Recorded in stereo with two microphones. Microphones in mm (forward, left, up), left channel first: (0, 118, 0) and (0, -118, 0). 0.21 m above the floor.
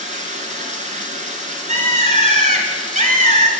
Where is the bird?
30° right (ahead or behind), 1.1 m.